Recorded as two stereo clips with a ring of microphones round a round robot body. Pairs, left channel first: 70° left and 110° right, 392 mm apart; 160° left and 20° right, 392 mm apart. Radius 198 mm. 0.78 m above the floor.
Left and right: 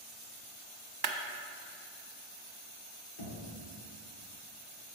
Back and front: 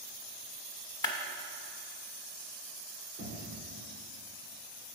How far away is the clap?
About 1.0 m.